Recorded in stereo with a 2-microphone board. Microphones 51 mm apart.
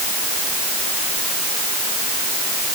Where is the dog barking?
I don't hear a dog barking.